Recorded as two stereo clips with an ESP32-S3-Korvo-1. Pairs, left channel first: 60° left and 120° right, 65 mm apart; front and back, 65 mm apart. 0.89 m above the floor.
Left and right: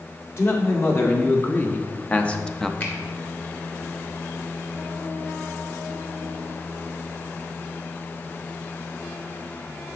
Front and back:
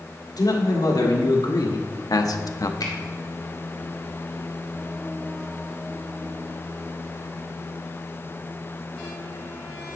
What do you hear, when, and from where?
0.4 s a man speaking: 10° left, 1.8 m; by 2.7 s 25° right, 0.6 m
2.8 s a finger snap: 5° left, 1.9 m